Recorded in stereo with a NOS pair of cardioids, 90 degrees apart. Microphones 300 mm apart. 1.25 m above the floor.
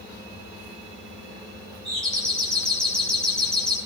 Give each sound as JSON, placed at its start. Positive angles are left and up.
{"t": 1.9, "sound": "a doorbell", "azimuth_deg": 5, "distance_m": 8.0}